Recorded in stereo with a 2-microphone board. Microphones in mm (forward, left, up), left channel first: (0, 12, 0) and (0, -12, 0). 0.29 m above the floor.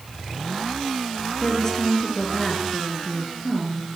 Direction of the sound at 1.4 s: 25° left (ahead or behind).